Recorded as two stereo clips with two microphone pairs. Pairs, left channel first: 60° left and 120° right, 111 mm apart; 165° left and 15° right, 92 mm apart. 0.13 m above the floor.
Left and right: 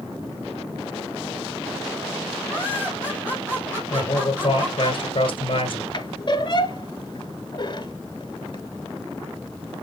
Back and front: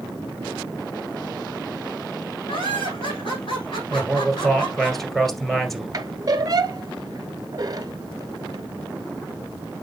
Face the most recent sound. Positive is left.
turn(degrees=25)